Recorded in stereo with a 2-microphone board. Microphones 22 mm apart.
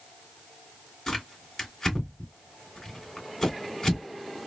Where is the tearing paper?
20° left (ahead or behind), 2.5 m.